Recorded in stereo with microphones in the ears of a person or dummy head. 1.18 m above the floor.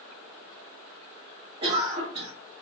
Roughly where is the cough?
Right.